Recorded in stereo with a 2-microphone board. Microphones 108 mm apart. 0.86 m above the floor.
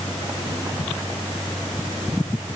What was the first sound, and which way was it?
Only background noise.